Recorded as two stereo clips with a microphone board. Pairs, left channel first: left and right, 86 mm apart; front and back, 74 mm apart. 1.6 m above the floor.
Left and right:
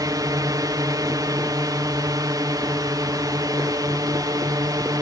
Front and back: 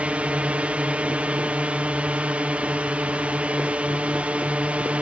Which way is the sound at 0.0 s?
115° right.